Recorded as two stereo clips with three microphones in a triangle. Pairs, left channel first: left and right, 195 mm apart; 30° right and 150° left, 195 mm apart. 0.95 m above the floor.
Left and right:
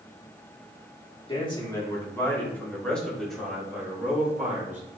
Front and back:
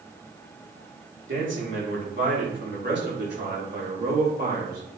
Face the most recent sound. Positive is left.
turn(degrees=-170)